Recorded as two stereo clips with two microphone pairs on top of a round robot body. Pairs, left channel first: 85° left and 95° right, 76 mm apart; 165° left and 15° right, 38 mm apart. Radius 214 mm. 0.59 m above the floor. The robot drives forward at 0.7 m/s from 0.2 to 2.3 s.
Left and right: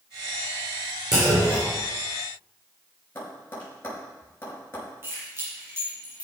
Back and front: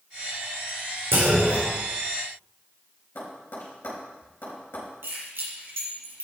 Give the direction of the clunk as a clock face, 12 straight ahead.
1 o'clock.